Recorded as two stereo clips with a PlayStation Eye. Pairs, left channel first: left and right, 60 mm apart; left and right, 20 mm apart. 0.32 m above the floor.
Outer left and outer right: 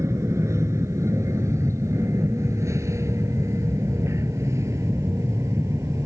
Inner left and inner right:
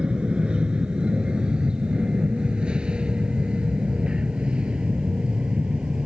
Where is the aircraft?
60° right (ahead or behind).